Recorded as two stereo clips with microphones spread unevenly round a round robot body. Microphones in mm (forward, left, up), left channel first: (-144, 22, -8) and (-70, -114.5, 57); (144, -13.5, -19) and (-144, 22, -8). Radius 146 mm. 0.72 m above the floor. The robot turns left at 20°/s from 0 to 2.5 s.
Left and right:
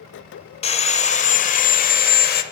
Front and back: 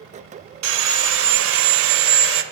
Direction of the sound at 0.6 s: 175° right.